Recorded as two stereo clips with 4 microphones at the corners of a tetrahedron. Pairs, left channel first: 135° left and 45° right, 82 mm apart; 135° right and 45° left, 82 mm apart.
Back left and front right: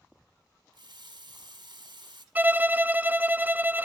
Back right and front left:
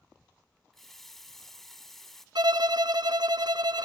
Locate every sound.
0.7 s a running tap: 50° right, 2 m
2.4 s a violin: 20° left, 0.5 m